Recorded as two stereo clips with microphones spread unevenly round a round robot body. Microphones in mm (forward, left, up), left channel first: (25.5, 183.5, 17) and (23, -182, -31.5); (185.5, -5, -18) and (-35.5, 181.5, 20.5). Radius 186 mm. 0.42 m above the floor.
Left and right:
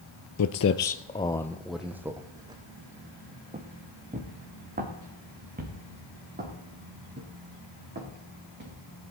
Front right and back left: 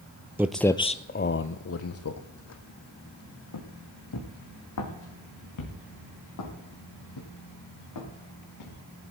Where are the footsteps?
65° left, 0.7 m; by 8.8 s 25° right, 6 m.